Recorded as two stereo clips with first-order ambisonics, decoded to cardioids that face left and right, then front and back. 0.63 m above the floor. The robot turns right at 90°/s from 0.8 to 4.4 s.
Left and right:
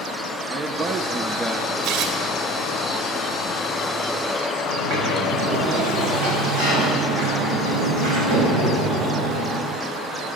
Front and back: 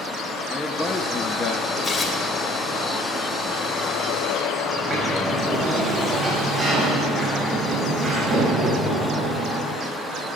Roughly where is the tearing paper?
Ahead right.